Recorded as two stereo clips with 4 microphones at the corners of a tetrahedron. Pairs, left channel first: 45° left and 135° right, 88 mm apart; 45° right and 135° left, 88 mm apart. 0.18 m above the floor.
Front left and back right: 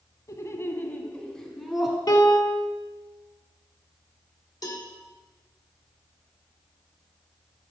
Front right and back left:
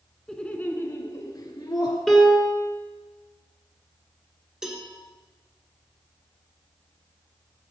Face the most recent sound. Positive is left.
turn(degrees=50)